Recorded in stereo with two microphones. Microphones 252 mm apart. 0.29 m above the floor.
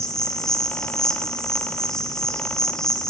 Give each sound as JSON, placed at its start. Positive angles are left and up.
{"t": 0.0, "sound": "an insect", "side_deg": 0, "distance_m": 0.8}